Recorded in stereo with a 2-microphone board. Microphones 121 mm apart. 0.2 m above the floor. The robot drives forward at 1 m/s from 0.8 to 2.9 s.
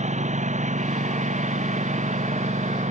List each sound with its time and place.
0.0 s a lawn mower: 75° right (ahead or behind); by 2.9 s 80° right